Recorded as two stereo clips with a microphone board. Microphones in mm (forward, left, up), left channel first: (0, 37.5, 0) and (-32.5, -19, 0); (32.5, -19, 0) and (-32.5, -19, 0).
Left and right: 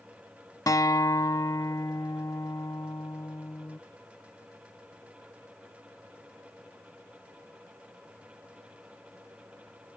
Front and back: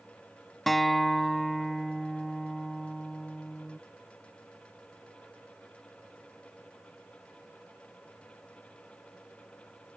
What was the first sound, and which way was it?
A guitar, 90° left.